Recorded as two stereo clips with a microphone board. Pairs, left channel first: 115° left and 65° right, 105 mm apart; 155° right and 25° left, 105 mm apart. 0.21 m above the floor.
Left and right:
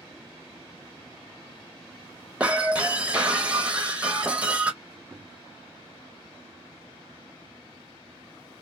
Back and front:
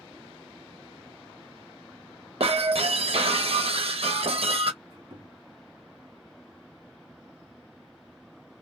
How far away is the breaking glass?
About 0.6 m.